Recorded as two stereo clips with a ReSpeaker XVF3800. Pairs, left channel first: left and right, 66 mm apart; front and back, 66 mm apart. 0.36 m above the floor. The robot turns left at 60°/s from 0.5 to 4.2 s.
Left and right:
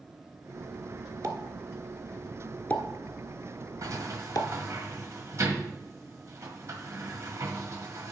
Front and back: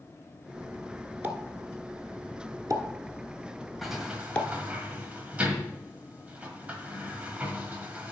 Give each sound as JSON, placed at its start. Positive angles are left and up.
{"t": 1.2, "sound": "a pop", "azimuth_deg": -115, "distance_m": 1.0}
{"t": 3.8, "sound": "a sliding door", "azimuth_deg": -90, "distance_m": 1.3}